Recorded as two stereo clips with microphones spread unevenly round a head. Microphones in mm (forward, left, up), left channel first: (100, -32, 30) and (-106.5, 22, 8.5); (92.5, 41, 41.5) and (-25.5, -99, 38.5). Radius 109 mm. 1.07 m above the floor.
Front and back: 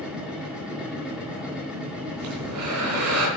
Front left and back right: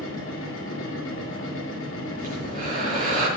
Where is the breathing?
175° left, 3 m.